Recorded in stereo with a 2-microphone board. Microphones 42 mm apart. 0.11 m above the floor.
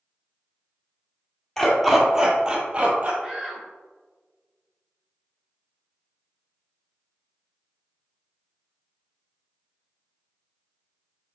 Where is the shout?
20° right (ahead or behind), 1.3 m.